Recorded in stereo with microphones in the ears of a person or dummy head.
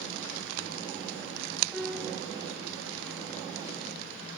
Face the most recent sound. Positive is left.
turn(degrees=0)  # may be behind; listen again after turning